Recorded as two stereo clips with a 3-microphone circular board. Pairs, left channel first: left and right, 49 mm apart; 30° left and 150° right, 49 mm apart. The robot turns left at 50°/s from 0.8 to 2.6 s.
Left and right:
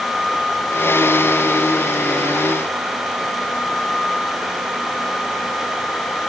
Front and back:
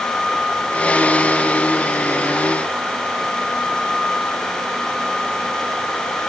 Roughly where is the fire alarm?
No fire alarm in this recording.